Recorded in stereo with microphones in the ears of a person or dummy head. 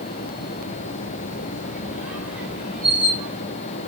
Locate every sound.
1.6 s a squeak: 5° right (ahead or behind), 3 m